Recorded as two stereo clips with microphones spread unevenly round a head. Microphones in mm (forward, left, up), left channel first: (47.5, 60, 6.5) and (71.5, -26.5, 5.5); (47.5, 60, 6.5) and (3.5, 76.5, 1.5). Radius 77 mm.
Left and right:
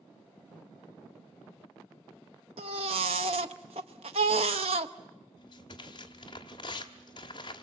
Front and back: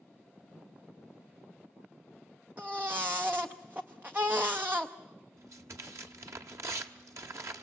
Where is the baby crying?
125° right, 0.6 m.